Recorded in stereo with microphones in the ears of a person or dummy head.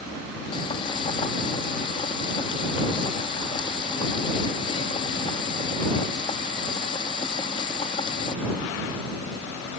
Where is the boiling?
35° left (ahead or behind).